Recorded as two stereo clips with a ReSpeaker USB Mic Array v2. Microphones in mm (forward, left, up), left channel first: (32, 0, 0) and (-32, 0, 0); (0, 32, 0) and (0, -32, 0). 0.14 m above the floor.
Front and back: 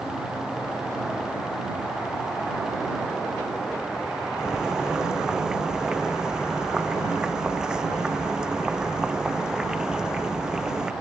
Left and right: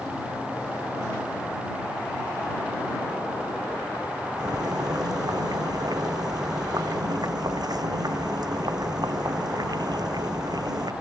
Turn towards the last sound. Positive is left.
turn(degrees=-100)